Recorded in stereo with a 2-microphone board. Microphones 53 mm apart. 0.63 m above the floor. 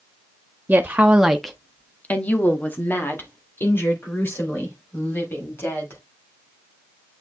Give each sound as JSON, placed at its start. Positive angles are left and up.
{"t": 0.7, "sound": "a woman speaking", "side_deg": -30, "distance_m": 0.9}